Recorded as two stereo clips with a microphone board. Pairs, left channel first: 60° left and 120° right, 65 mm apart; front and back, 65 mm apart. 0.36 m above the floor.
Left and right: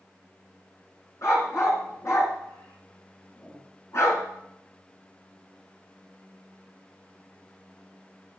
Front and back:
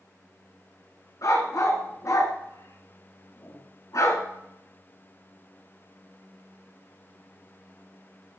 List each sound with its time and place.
1.2 s a dog barking: 20° left, 1.7 m